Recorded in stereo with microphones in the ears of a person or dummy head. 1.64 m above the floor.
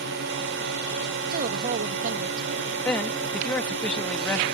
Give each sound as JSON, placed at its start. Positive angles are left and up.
{"t": 0.0, "sound": "a drone", "side_deg": -60}
{"t": 1.3, "sound": "a woman speaking", "side_deg": -45}
{"t": 2.9, "sound": "a man speaking", "side_deg": 10}